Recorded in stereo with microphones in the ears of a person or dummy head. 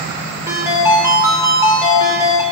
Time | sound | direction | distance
0.5 | a ringtone | 15° right (ahead or behind) | 1.9 m